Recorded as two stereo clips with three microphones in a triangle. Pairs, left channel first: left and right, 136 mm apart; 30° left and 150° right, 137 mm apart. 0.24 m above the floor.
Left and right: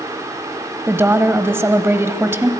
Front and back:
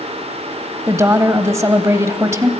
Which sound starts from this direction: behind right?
A woman speaking, at 0.9 s.